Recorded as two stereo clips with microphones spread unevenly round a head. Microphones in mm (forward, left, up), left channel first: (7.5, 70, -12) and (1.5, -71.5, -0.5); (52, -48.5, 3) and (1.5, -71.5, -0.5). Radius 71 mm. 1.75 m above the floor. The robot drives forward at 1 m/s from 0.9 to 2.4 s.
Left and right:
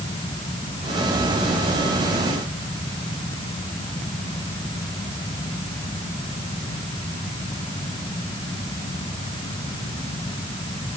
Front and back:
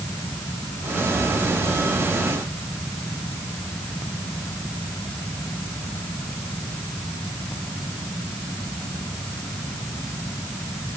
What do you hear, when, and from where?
Only background noise.